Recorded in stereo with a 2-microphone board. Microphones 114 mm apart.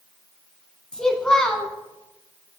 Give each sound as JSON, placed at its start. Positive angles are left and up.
{"t": 0.9, "sound": "a child speaking", "side_deg": 5, "distance_m": 0.7}